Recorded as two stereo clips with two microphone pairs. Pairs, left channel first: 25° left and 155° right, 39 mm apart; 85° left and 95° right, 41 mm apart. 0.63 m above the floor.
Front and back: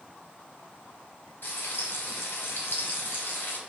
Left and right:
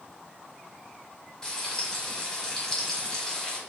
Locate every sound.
1.4 s frying: 10° left, 1.4 m